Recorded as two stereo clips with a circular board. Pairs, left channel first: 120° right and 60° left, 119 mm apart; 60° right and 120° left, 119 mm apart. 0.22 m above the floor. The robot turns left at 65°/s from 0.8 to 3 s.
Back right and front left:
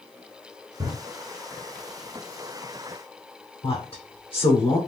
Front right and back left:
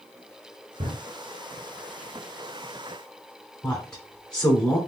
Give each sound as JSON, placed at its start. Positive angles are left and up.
{"t": 0.8, "sound": "a drawer", "azimuth_deg": 110, "distance_m": 1.3}
{"t": 3.6, "sound": "a woman speaking", "azimuth_deg": -140, "distance_m": 2.0}